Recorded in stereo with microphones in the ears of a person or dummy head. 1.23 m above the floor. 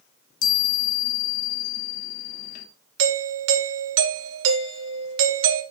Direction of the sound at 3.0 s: 70° right (ahead or behind).